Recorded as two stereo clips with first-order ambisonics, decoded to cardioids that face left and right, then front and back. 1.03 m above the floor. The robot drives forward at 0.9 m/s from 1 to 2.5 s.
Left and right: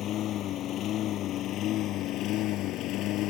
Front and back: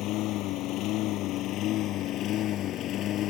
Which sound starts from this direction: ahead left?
A lawn mower, at 0.0 s.